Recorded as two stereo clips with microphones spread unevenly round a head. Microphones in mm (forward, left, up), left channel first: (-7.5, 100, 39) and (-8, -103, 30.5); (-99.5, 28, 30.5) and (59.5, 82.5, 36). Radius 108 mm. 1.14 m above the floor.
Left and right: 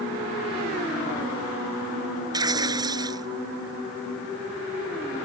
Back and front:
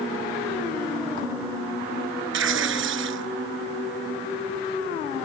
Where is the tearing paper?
15° right.